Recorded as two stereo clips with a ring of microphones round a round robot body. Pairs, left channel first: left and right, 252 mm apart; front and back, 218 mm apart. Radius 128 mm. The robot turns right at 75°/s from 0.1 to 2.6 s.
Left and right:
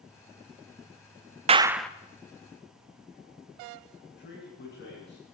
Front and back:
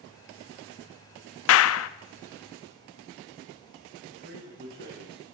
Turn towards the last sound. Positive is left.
turn(degrees=140)